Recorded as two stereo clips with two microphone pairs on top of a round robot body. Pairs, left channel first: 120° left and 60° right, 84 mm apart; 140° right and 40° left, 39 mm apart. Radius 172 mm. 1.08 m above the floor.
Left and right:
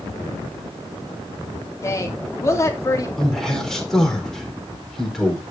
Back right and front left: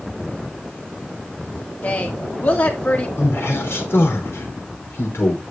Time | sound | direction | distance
1.8 | a woman speaking | 175° left | 3 m
3.2 | a man speaking | 155° right | 4.5 m